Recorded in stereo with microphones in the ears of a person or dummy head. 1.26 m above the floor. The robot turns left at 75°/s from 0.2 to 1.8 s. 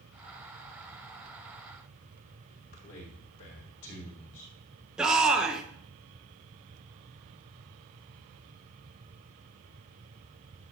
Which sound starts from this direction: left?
A man speaking, at 2.5 s.